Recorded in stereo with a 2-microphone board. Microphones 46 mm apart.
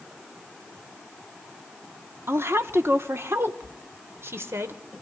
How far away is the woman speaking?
About 1.5 m.